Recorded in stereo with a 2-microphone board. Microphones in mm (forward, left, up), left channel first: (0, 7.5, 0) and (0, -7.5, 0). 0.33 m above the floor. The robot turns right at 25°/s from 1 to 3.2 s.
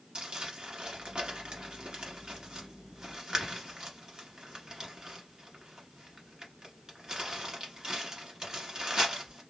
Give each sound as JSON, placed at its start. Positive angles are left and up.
{"t": 0.1, "sound": "crumpling", "side_deg": -75, "distance_m": 1.4}